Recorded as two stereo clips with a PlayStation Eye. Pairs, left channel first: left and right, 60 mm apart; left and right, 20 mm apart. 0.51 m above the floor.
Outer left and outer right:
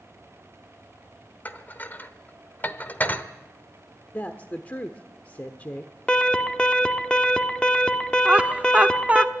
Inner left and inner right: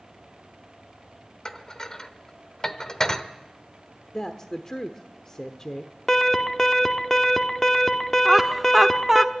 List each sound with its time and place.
1.4 s dishes clattering: 35° left (ahead or behind), 0.9 m
4.1 s a woman speaking: 30° left (ahead or behind), 1.0 m
6.1 s an alarm: 15° left (ahead or behind), 1.1 m
8.2 s laughter: 20° right (ahead or behind), 0.6 m